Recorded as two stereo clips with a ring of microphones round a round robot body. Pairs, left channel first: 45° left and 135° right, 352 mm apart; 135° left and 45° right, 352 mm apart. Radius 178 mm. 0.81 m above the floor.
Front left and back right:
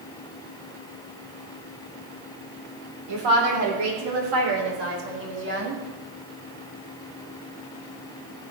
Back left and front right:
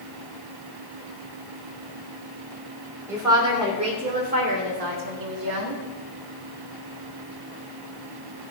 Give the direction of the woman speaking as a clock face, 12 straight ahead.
4 o'clock.